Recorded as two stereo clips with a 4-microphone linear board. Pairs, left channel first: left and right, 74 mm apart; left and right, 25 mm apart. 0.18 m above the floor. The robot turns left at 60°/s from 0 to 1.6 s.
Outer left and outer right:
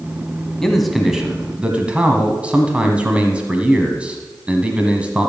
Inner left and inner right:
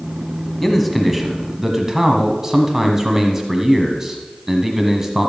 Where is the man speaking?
5° left (ahead or behind), 1.3 m; by 5.3 s 15° right (ahead or behind), 1.3 m.